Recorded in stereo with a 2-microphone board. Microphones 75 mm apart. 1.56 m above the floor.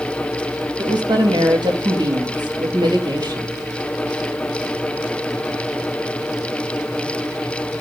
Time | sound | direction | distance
0.8 | a woman speaking | 80° right | 3 m